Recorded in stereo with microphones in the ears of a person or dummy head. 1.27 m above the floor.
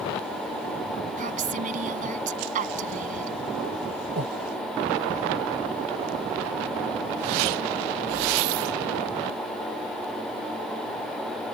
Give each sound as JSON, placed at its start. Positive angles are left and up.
{"t": 1.2, "sound": "a woman speaking", "side_deg": -40}
{"t": 4.2, "sound": "breathing", "side_deg": -55}